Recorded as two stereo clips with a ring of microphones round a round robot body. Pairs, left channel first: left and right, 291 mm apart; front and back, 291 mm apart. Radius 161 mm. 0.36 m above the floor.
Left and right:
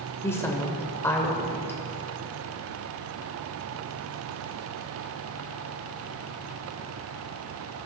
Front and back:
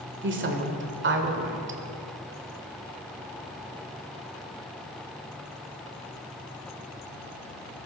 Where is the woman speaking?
165° left, 1.5 m.